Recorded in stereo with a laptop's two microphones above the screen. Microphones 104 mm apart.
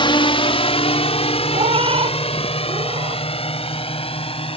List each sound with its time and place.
0.0 s a drone: 55° left (ahead or behind); by 4.6 s 65° left (ahead or behind)
1.5 s a cat meowing: 65° right (ahead or behind)